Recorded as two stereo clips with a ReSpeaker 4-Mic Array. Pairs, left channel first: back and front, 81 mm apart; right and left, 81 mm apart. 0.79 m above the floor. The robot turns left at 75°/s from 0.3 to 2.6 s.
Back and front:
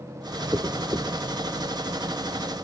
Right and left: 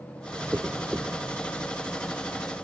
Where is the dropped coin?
30° left, 0.9 m; by 1.1 s 10° right, 0.9 m.